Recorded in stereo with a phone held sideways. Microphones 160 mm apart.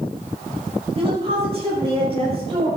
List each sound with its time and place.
0.9 s a woman speaking: 35° right (ahead or behind), 6.5 m